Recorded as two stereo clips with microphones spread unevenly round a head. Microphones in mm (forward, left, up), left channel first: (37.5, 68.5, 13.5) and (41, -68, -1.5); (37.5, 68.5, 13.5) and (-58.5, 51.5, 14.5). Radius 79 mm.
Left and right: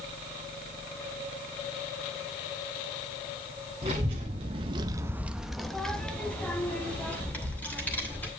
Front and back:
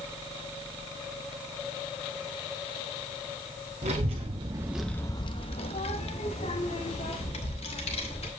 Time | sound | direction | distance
3.8 | a child speaking | 150° right | 1.1 m